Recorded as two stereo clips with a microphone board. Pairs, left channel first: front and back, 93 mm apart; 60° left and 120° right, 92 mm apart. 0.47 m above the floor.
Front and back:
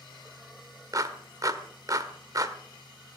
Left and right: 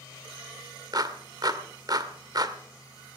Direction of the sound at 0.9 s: 145° right.